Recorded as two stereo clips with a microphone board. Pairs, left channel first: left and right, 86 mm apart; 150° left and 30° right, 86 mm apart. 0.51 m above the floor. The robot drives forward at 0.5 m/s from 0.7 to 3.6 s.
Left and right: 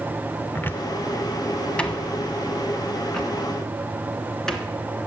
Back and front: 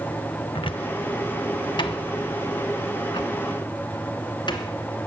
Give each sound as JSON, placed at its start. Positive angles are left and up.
{"t": 0.6, "sound": "a cupboard door", "azimuth_deg": 155, "distance_m": 0.6}